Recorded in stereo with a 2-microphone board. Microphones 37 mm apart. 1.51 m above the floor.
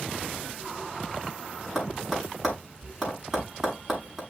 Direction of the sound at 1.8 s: 5° right (ahead or behind).